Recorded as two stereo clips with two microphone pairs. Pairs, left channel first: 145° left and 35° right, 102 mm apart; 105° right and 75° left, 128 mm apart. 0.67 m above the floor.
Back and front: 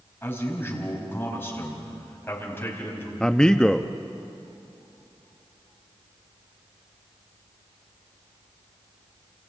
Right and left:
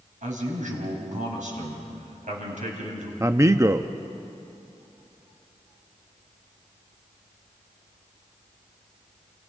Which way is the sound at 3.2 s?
80° left.